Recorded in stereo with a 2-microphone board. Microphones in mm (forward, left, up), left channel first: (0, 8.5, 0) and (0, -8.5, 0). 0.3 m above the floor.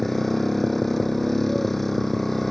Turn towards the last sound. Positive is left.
turn(degrees=15)  # may be behind; listen again after turning